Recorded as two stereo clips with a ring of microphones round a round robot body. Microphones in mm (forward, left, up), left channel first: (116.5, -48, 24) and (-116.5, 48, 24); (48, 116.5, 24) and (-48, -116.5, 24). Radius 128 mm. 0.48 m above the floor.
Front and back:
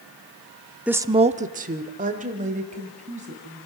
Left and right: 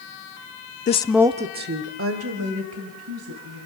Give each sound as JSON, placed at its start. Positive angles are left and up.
{"t": 0.9, "sound": "a woman speaking", "azimuth_deg": 75, "distance_m": 0.8}